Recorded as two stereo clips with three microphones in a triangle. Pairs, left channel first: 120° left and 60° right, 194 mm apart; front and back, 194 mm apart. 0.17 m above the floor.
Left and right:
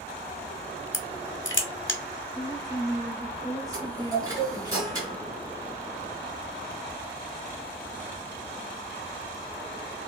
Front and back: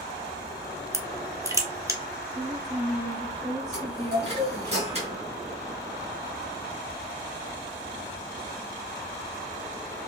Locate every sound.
0.9 s crushing: 110° left, 0.6 m
2.4 s a woman speaking: 155° left, 1.0 m
3.7 s a chime: 130° right, 1.7 m